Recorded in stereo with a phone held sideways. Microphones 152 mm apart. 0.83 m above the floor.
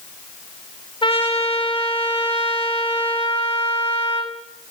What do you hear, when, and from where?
1.0 s a trumpet: 35° left (ahead or behind), 3 m